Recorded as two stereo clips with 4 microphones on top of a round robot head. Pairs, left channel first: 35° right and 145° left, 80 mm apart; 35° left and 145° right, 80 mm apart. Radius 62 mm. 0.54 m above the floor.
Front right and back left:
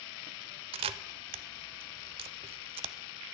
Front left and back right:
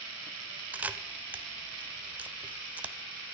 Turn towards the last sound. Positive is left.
turn(degrees=140)